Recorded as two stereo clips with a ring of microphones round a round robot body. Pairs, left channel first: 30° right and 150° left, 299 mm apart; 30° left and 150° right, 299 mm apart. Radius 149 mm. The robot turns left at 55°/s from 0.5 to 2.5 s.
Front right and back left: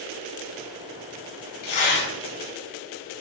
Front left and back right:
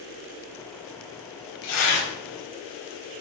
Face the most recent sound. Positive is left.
turn(degrees=-50)